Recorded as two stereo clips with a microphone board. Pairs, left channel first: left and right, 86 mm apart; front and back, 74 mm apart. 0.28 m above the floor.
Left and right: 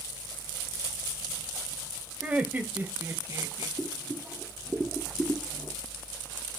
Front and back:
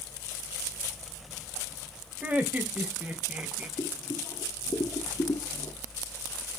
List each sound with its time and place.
2.2 s laughter: 150° right, 1.6 m; by 3.7 s 115° right, 2 m
3.8 s boiling: 10° right, 2.5 m